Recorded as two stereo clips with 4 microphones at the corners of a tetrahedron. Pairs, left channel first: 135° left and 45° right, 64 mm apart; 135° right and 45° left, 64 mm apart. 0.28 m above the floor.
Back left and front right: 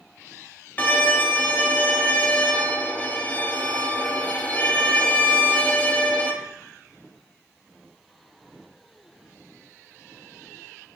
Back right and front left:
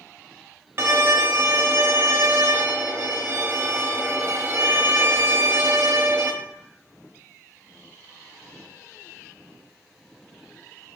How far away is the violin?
About 0.5 m.